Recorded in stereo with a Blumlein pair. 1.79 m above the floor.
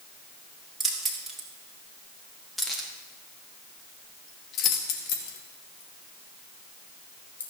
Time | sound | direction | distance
0.8 | keys jangling | 15° right | 3 m